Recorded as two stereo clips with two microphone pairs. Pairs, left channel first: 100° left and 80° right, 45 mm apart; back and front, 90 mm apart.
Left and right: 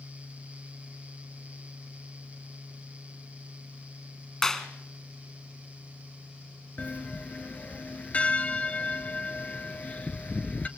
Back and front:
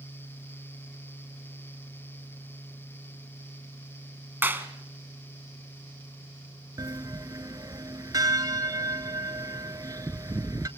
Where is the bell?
45° left, 0.8 m.